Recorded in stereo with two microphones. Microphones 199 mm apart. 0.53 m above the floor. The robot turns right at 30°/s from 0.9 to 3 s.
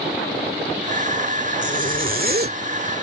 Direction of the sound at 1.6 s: 35° right (ahead or behind).